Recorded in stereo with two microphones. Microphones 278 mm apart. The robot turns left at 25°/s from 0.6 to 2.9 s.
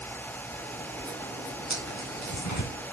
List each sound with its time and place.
1.7 s tearing paper: 75° left (ahead or behind), 3.5 m; by 2.7 s 80° left, 3.5 m